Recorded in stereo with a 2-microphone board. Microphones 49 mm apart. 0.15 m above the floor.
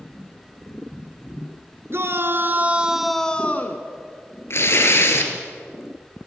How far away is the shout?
About 2 m.